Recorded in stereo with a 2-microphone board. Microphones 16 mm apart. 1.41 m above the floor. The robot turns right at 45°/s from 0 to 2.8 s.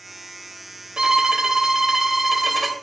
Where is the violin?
80° right, 1.2 m; by 2.7 s straight ahead, 1.2 m.